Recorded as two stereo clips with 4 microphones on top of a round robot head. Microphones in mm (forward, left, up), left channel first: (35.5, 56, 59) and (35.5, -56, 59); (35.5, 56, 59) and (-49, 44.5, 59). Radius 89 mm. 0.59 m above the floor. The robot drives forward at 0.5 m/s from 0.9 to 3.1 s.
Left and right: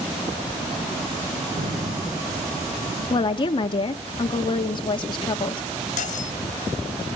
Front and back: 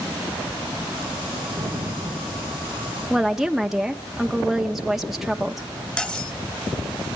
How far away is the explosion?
About 7 m.